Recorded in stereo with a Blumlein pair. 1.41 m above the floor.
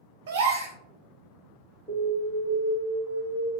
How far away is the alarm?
About 1.9 m.